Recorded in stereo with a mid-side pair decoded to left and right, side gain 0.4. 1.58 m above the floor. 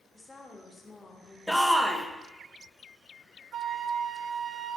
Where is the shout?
5° right, 1.6 m.